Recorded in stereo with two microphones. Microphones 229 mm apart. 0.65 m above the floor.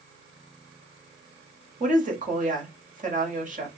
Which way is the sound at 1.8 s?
35° right (ahead or behind).